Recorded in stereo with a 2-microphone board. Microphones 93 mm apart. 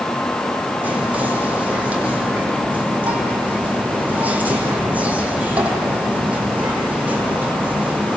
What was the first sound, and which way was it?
Whispering, 15° right (ahead or behind).